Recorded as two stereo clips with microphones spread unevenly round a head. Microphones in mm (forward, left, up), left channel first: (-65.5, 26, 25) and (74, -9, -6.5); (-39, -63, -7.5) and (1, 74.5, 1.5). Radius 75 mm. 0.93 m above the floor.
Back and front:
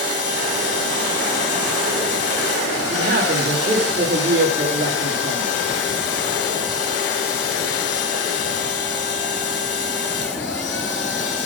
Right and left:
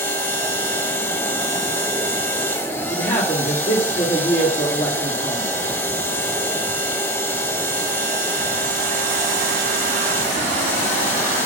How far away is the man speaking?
About 1.7 m.